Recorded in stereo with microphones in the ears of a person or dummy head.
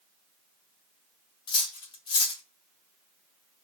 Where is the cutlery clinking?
35° left (ahead or behind), 0.7 m.